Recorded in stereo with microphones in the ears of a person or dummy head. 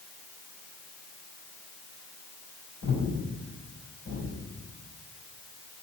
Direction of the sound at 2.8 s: 60° left (ahead or behind).